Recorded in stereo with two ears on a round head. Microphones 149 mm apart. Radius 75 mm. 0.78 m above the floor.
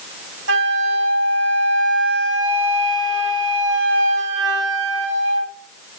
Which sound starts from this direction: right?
A flute, at 0.5 s.